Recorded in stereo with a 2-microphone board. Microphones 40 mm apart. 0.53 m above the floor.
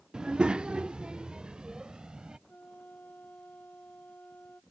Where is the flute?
45° left (ahead or behind).